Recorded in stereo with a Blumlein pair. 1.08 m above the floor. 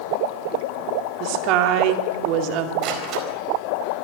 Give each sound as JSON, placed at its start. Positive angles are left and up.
{"t": 1.2, "sound": "a woman speaking", "azimuth_deg": -40, "distance_m": 2.0}
{"t": 2.8, "sound": "a door slam", "azimuth_deg": -35, "distance_m": 4.0}